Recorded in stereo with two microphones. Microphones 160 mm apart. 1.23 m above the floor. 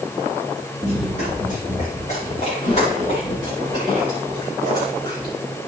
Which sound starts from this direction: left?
Running footsteps, at 0.8 s.